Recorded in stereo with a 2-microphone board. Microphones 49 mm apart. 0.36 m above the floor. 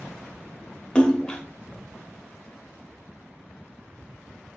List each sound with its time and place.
0.9 s a splash: 20° left (ahead or behind), 0.7 m